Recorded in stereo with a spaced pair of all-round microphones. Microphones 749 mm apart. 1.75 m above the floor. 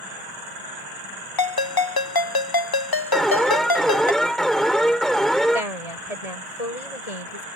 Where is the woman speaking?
50° left (ahead or behind).